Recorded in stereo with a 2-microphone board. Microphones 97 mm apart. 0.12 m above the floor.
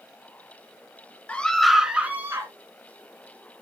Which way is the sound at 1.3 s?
15° left (ahead or behind).